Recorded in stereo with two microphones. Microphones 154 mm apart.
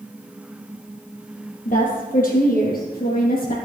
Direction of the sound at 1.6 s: 60° left (ahead or behind).